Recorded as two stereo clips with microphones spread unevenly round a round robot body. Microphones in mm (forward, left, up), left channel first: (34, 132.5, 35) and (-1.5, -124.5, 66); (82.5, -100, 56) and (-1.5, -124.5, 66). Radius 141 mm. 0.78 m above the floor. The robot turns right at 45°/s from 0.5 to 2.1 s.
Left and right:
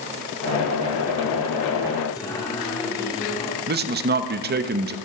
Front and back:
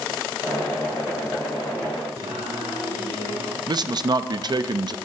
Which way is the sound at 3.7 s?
140° right.